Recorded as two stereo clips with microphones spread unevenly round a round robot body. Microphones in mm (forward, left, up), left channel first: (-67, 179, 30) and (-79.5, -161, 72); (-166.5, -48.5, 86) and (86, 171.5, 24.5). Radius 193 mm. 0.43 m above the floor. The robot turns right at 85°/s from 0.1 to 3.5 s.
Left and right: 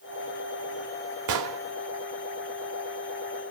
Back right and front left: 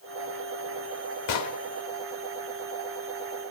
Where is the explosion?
120° right, 0.9 m; by 1.6 s 90° right, 0.9 m.